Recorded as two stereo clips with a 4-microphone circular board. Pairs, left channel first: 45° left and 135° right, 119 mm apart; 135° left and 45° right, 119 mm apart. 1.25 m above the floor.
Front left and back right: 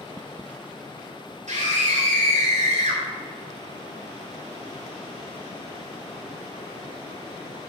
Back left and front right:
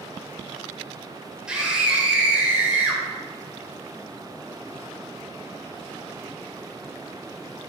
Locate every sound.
1.5 s a scream: 125° right, 5 m; by 3.0 s 120° right, 5.5 m